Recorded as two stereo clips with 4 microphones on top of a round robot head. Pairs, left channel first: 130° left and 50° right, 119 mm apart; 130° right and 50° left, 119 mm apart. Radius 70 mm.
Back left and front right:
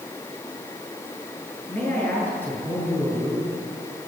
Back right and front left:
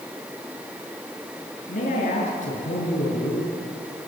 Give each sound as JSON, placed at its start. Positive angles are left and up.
{"t": 1.7, "sound": "a man speaking", "azimuth_deg": -155, "distance_m": 7.0}